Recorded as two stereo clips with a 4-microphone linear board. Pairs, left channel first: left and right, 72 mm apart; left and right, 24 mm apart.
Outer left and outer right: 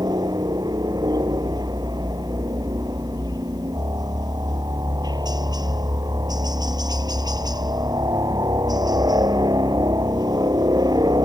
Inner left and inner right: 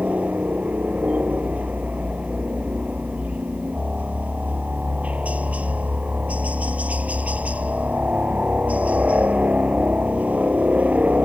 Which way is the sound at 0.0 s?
75° right (ahead or behind).